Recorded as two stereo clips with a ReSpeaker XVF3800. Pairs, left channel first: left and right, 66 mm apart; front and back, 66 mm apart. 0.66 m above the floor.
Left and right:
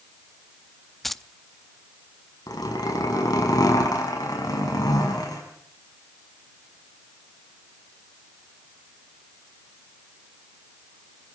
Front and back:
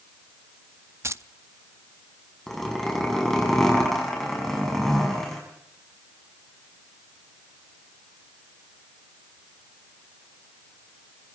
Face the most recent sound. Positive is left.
turn(degrees=85)